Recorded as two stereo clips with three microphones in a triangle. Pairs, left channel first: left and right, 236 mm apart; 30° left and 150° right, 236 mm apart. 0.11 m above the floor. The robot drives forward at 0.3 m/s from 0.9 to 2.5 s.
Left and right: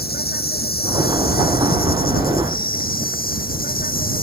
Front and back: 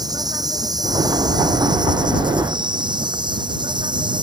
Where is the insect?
135° left; by 4.2 s 140° left.